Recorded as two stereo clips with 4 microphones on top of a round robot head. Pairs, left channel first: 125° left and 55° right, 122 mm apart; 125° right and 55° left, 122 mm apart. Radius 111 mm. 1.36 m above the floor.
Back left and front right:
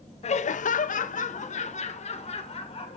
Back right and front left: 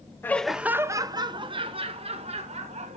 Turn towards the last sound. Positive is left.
turn(degrees=85)